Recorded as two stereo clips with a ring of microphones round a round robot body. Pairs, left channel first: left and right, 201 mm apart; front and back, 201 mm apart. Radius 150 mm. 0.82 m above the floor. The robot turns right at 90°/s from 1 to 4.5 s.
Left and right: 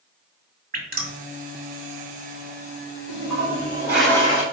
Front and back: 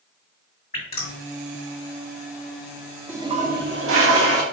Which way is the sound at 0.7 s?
55° right.